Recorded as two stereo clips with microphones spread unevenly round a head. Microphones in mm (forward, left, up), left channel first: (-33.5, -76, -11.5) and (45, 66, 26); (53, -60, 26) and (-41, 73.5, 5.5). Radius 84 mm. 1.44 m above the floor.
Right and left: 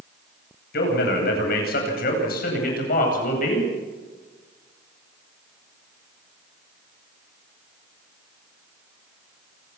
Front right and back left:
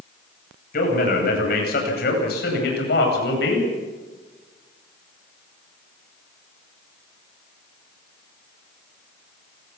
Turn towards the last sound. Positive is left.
turn(degrees=-80)